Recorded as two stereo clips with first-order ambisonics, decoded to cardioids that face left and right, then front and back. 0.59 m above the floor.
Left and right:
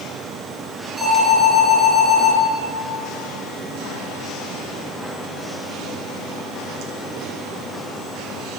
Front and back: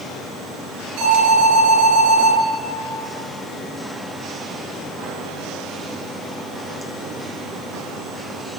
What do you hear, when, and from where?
1.0 s an alarm: 150° right, 8.5 m